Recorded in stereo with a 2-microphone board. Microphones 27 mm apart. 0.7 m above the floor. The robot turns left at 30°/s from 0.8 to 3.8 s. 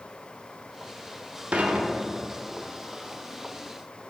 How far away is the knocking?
No knocking in this recording.